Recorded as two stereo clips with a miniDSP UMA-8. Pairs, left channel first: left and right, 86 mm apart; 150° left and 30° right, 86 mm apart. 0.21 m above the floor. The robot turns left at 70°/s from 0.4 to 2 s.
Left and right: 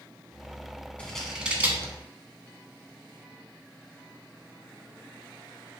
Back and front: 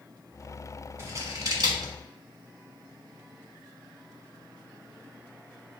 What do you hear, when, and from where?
1.0 s scissors: 15° left, 0.9 m; by 1.9 s 50° right, 0.9 m